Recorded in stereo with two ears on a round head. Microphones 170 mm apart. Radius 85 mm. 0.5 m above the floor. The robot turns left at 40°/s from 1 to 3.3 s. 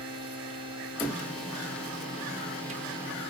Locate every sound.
1.0 s a cupboard door: 5° left (ahead or behind), 0.6 m; by 2.8 s 35° right (ahead or behind), 0.6 m